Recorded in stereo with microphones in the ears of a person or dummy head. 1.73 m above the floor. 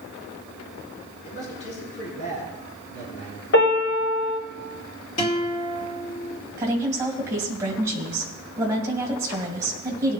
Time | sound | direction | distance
1.2 | a man speaking | 70° left (ahead or behind) | 5 m
3.5 | a piano | 75° left (ahead or behind) | 4 m
5.2 | a guitar | 40° left (ahead or behind) | 1.9 m
6.6 | a woman speaking | 15° right (ahead or behind) | 2 m